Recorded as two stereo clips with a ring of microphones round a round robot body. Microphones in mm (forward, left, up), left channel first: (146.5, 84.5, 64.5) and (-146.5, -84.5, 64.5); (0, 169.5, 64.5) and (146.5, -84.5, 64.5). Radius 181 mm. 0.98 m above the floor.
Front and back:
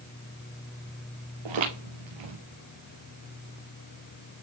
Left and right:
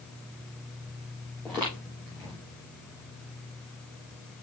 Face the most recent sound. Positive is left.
turn(degrees=-155)